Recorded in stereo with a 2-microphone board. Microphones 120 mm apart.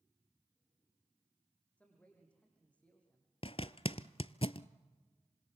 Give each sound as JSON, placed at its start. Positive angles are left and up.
{"t": 1.8, "sound": "a man speaking", "side_deg": 10, "distance_m": 6.0}
{"t": 3.4, "sound": "a zipper", "side_deg": 50, "distance_m": 0.5}